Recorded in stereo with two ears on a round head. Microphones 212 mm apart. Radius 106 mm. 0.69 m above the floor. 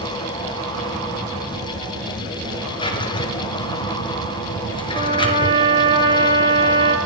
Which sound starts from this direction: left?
A drawer, at 2.8 s.